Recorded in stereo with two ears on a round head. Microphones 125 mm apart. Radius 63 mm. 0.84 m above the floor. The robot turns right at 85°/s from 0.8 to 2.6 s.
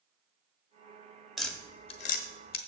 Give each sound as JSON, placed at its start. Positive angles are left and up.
{"t": 1.4, "sound": "tapping", "side_deg": 0, "distance_m": 1.2}